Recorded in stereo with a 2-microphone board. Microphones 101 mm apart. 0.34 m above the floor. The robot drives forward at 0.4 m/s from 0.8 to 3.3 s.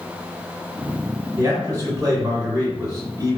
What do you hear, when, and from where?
1.4 s a man speaking: 35° right (ahead or behind), 1.8 m